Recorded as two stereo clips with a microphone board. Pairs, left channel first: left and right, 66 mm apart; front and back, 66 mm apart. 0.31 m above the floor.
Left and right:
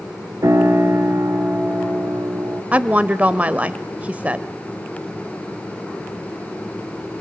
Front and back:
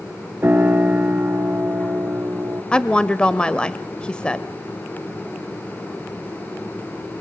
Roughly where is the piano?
Behind right.